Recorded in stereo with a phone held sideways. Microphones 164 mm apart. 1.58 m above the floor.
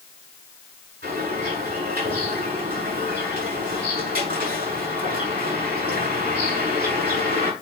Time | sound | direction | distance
1.0 | a bird | 75° right (ahead or behind) | 6.5 m